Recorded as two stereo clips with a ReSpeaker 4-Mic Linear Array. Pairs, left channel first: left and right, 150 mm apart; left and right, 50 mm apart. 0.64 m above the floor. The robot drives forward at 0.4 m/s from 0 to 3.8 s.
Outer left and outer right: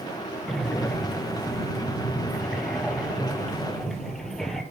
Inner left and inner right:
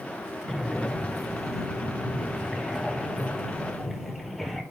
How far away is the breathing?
About 1.6 m.